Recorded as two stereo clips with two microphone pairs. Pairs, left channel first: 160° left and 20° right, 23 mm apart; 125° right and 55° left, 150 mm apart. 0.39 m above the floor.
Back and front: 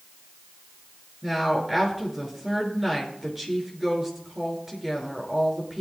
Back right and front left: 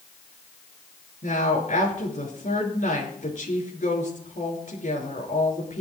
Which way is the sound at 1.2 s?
95° right.